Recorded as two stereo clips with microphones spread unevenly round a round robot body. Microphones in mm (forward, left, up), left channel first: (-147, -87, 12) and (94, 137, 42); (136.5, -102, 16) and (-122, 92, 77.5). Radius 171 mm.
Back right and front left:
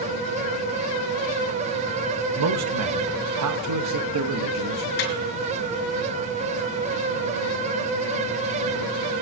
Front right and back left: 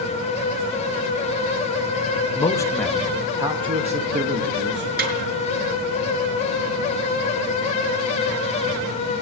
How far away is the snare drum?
About 5 m.